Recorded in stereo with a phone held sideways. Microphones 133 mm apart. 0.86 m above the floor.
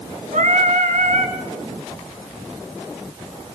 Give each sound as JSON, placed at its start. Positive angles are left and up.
{"t": 0.3, "sound": "singing", "side_deg": -70, "distance_m": 2.5}